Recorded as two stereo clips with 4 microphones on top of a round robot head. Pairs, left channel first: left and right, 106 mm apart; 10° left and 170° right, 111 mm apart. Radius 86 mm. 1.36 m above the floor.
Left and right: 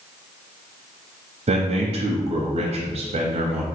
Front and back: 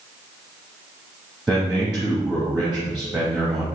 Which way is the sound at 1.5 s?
85° right.